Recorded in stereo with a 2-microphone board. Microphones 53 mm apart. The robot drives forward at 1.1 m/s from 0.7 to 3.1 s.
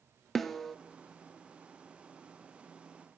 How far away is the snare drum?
About 0.8 m.